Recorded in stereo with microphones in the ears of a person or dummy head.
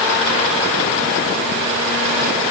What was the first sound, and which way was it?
Only background noise.